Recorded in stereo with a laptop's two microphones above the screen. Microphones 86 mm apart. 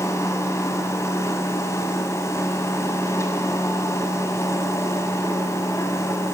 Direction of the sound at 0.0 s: 35° left (ahead or behind).